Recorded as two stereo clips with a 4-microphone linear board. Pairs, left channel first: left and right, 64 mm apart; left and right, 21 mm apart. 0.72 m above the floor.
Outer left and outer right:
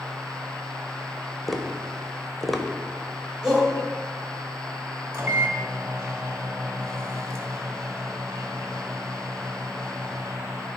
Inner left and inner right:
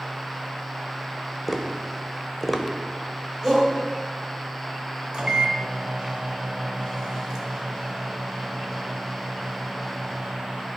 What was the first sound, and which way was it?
Tapping, centre (ahead or behind).